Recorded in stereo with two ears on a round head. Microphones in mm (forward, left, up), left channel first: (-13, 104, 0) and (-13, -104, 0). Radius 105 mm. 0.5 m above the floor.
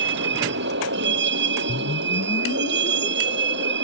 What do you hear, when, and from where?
0.0 s a vehicle: 55° right (ahead or behind)
1.7 s a whoosh: 30° left (ahead or behind)